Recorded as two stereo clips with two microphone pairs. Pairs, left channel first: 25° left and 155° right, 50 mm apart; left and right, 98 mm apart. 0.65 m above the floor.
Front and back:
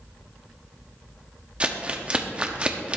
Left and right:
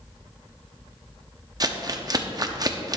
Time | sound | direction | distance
1.6 | crumpling | 100° right | 0.8 m